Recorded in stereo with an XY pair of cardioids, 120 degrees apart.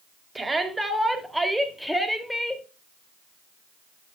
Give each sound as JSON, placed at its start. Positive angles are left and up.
{"t": 0.3, "sound": "a shout", "azimuth_deg": -15, "distance_m": 3.0}